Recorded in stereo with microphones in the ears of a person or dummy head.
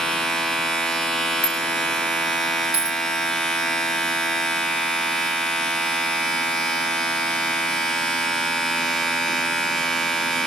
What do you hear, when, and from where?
0.0 s a machine running: 5° left (ahead or behind), 1.2 m
1.4 s a bicycle bell: 5° right (ahead or behind), 2 m
2.7 s a dropped coin: 5° right (ahead or behind), 5 m